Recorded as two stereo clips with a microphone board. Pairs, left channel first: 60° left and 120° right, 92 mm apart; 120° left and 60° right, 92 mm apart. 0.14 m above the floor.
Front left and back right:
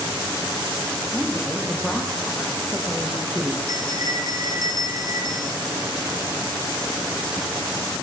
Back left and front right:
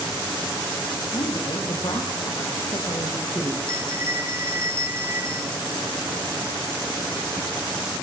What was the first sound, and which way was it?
A woman speaking, 140° left.